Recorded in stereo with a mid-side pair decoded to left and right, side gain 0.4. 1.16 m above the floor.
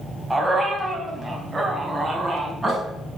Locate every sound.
0.3 s a dog barking: 15° right, 3.5 m; by 2.8 s 20° right, 5 m